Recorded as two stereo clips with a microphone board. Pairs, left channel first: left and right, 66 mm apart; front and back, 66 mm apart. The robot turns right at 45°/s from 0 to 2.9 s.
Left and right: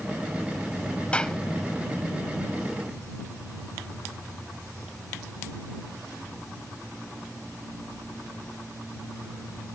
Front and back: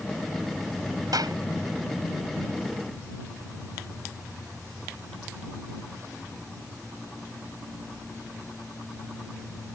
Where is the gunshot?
160° left; by 1.4 s 175° left.